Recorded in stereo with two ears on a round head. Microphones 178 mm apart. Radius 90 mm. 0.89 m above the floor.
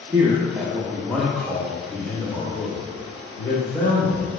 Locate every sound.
0.1 s a man speaking: 20° right (ahead or behind), 1.1 m; by 4.3 s 35° left (ahead or behind), 3 m